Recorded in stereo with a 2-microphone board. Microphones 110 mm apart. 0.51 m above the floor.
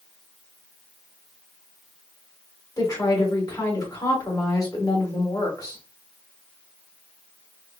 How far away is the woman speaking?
About 1.9 m.